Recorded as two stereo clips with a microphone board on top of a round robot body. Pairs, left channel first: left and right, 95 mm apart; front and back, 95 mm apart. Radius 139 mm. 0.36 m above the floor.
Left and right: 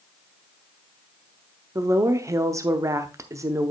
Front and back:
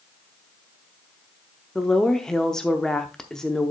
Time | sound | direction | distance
1.8 | a woman speaking | 80° right | 0.9 m